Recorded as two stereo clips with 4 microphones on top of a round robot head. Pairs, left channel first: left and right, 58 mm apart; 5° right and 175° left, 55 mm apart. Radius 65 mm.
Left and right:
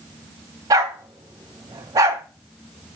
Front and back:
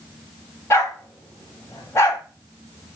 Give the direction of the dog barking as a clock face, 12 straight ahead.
2 o'clock.